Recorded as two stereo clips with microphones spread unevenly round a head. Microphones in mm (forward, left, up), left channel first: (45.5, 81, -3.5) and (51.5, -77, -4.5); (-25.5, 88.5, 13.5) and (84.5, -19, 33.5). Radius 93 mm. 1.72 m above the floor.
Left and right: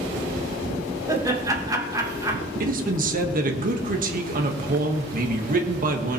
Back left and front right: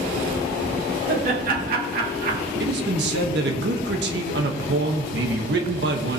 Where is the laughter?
20° right, 2.5 m.